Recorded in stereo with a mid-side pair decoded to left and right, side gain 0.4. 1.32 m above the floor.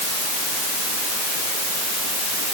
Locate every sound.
Only background noise.